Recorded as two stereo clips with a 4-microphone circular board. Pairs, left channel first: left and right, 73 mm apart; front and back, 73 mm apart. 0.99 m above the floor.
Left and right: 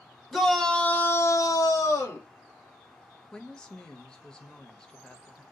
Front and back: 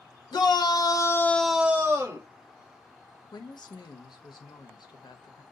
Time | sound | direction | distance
0.3 | a shout | 5° left | 1.1 m
3.3 | a woman speaking | 10° left | 0.7 m